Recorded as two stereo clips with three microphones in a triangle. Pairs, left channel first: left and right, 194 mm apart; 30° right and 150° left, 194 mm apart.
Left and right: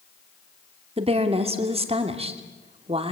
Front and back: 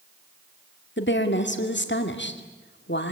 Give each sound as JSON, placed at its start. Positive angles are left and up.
{"t": 1.0, "sound": "a woman speaking", "azimuth_deg": -35, "distance_m": 2.0}